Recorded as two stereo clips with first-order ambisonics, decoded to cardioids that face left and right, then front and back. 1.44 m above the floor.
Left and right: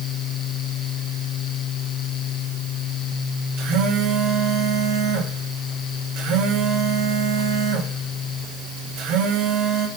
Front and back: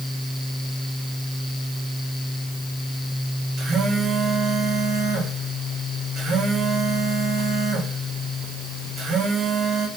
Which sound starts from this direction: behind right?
A phone buzzing, at 3.6 s.